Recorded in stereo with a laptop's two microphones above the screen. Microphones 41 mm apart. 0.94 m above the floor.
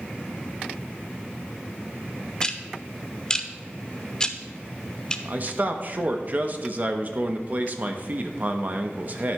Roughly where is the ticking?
Centre.